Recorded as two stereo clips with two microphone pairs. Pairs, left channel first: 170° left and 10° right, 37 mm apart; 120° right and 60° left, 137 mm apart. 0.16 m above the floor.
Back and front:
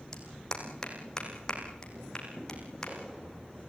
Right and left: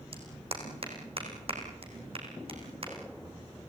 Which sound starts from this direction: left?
A clap, at 0.1 s.